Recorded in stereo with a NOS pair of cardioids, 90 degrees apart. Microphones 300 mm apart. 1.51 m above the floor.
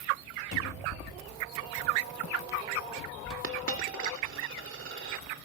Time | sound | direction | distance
0.5 | a cupboard door | 45° left | 3.5 m
3.4 | a dropped coin | 45° right | 2.5 m